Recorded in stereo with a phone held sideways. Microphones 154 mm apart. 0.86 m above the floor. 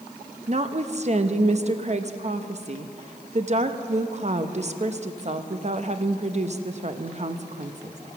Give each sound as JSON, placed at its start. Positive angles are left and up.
{"t": 0.5, "sound": "a woman speaking", "side_deg": -45, "distance_m": 0.8}